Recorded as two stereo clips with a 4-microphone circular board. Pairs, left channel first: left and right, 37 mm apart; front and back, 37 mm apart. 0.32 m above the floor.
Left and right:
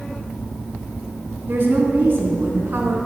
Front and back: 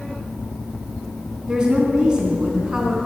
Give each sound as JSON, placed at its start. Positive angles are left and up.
{"t": 1.5, "sound": "a woman speaking", "azimuth_deg": -115, "distance_m": 3.0}